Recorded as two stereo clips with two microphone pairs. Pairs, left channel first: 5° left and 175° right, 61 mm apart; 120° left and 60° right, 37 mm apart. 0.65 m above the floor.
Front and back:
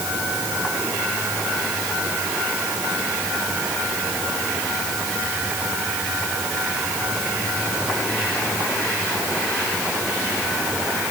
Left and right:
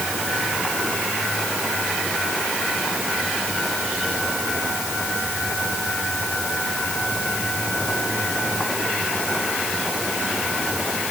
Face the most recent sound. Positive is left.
No sound to turn to.